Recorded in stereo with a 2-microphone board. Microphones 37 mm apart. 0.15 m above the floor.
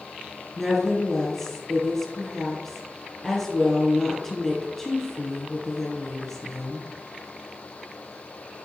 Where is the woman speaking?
5° left (ahead or behind), 3.5 m.